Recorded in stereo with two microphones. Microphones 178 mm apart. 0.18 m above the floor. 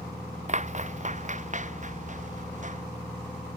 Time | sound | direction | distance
0.5 | footsteps | 40° right (ahead or behind) | ?